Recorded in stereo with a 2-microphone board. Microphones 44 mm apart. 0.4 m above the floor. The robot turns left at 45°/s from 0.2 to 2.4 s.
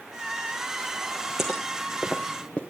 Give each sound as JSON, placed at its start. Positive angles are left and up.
{"t": 1.4, "sound": "footsteps", "side_deg": 0, "distance_m": 1.9}